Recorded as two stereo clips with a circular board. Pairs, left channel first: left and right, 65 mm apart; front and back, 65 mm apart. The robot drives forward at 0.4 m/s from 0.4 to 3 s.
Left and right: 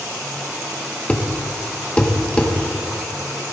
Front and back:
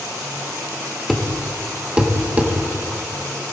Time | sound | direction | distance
1.1 | a thud | 80° left | 1.0 m